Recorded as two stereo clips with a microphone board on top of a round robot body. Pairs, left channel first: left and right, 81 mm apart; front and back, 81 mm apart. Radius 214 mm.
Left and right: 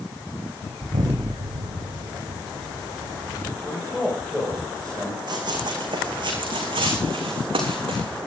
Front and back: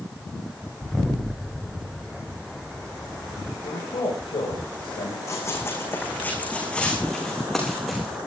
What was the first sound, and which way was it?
An explosion, 95° right.